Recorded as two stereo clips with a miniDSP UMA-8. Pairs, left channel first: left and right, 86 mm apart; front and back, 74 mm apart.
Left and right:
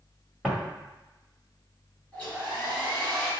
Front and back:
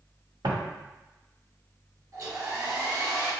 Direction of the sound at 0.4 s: 175° right.